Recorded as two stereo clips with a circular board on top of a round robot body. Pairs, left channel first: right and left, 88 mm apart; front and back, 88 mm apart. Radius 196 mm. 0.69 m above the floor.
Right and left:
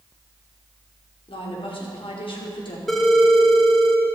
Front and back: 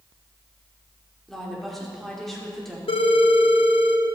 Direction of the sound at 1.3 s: 90° right.